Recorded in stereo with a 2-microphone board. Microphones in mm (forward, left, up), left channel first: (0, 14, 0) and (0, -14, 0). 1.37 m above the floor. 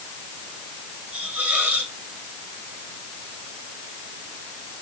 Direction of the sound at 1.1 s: 85° right.